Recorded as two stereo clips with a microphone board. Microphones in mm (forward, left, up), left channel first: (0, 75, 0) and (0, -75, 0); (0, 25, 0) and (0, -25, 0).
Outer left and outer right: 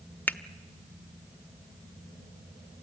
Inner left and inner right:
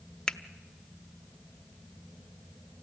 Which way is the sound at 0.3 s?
10° left (ahead or behind).